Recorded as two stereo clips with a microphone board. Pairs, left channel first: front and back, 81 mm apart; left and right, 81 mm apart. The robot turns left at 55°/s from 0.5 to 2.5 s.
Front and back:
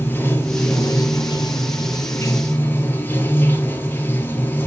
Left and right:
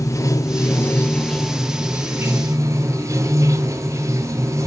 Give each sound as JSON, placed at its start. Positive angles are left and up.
{"t": 0.0, "sound": "running water", "azimuth_deg": 55, "distance_m": 1.6}